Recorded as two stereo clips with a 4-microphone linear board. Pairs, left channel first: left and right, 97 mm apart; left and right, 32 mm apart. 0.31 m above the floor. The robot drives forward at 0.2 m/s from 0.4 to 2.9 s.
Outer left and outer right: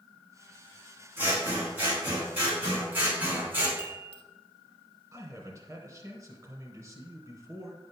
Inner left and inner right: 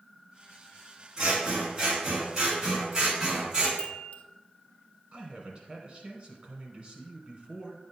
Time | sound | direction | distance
1.2 | scissors | 20° right (ahead or behind) | 3.5 m
3.8 | a chime | 75° left (ahead or behind) | 0.8 m
5.1 | a man speaking | 35° right (ahead or behind) | 1.4 m